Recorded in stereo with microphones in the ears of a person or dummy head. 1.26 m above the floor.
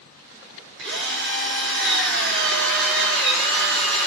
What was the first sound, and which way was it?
A drill, 65° right (ahead or behind).